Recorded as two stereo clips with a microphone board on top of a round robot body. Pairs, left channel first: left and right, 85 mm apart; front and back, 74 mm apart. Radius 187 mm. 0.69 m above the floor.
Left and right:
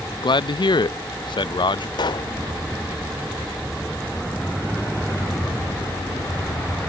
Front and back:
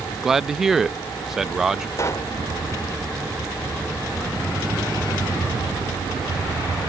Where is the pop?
55° left.